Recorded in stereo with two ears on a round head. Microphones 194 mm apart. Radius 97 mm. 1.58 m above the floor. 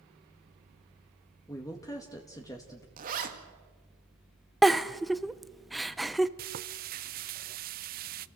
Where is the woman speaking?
15° left (ahead or behind), 1.9 m.